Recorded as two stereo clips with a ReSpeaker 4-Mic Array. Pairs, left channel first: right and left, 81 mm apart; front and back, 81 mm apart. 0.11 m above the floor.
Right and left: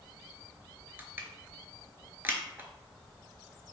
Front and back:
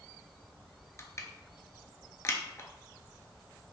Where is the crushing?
35° left, 0.5 m.